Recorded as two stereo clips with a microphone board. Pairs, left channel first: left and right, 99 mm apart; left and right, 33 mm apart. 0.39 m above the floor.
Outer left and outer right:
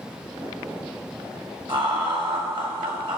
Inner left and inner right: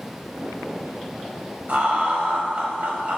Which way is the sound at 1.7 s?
55° right (ahead or behind).